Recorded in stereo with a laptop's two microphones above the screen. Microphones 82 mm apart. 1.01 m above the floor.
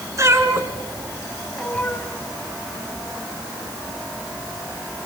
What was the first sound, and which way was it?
A cat meowing, 40° right (ahead or behind).